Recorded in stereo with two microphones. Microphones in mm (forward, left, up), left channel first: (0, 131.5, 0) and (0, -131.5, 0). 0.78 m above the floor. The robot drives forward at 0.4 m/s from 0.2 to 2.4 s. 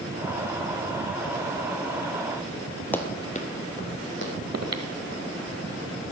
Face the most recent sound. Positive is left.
turn(degrees=-70)  # may be behind; listen again after turning